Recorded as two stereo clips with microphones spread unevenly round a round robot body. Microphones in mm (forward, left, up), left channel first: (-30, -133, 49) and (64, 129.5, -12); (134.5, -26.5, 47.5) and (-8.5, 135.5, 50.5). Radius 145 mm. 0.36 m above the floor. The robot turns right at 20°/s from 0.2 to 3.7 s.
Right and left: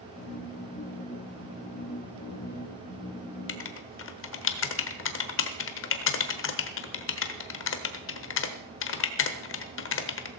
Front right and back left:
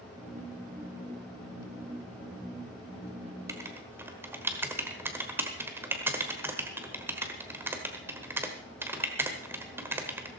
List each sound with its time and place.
3.5 s writing: 155° right, 1.3 m; by 10.3 s 150° right, 1.3 m